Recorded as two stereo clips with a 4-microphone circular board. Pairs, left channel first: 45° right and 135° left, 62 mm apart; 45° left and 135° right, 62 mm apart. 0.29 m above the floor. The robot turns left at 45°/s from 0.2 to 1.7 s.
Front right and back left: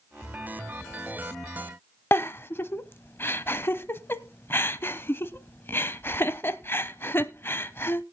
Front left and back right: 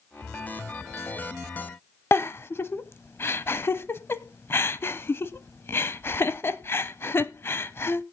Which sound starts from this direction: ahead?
A giggle, at 2.1 s.